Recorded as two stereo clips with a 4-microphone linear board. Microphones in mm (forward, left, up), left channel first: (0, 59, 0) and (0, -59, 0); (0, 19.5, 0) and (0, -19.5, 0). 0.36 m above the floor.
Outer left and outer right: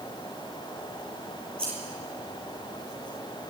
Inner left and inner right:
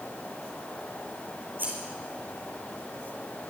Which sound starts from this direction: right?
Scissors, at 1.6 s.